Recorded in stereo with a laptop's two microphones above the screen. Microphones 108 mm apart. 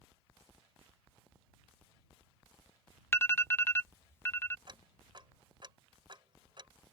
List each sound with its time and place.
3.1 s an alarm: 25° left (ahead or behind)
4.7 s ticking: 45° right (ahead or behind)